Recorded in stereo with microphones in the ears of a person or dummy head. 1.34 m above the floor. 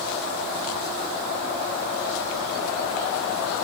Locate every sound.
Only background noise.